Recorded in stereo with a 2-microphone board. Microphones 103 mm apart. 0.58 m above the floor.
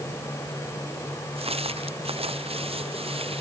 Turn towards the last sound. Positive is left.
turn(degrees=-70)  # may be behind; listen again after turning